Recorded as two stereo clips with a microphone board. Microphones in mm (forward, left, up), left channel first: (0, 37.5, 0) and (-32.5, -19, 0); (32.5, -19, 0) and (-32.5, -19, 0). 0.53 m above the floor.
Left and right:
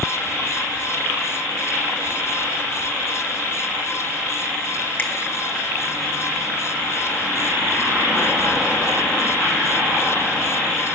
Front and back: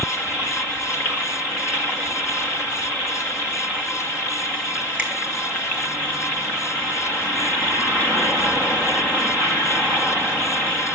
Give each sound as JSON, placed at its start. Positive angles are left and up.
{"t": 5.0, "sound": "a finger snap", "azimuth_deg": 120, "distance_m": 2.5}